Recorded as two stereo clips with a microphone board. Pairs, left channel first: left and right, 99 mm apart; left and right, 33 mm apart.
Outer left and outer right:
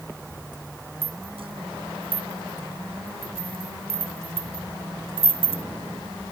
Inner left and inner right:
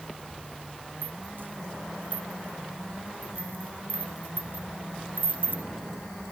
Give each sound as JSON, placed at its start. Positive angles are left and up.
{"t": 1.0, "sound": "a rattle", "side_deg": -75}